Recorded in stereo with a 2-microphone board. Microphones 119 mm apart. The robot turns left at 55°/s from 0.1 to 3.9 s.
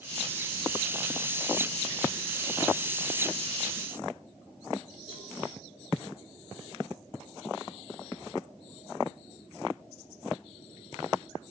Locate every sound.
5.1 s a cowbell: 50° left (ahead or behind), 6 m